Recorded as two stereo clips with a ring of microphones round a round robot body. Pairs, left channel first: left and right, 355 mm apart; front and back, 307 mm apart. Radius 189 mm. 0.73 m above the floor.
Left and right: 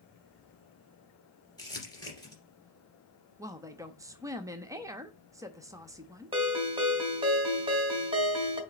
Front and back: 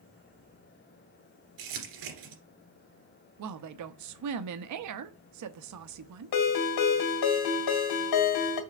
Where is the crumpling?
170° left, 2.5 m.